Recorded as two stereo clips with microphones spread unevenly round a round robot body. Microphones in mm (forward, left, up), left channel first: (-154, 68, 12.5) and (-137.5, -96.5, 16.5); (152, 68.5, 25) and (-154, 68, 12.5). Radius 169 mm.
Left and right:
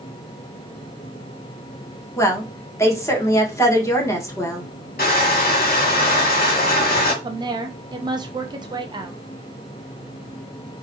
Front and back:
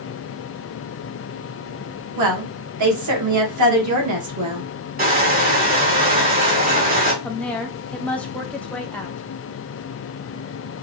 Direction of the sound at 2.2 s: 165° left.